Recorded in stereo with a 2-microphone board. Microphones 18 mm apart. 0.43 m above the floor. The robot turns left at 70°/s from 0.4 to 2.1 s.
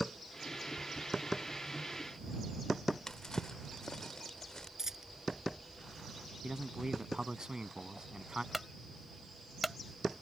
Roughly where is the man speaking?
Right.